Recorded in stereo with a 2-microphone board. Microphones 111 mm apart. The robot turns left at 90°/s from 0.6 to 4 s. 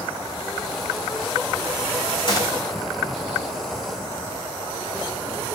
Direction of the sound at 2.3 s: 50° left (ahead or behind).